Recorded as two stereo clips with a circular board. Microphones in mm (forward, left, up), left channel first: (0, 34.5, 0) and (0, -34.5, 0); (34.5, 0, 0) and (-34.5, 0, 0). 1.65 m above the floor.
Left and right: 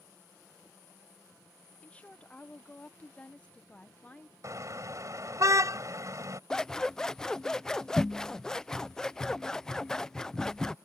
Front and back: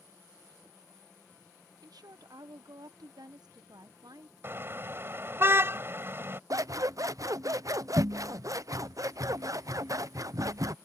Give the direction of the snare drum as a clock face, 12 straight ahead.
No snare drum in this recording.